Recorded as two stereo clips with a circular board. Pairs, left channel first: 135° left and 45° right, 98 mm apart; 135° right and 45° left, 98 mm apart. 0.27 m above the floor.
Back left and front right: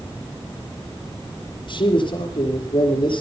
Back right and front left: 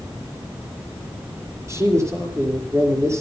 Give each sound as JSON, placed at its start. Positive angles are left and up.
{"t": 1.7, "sound": "a man speaking", "azimuth_deg": 105, "distance_m": 5.5}